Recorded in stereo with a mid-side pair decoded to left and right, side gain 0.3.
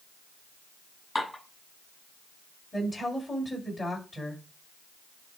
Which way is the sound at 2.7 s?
30° left.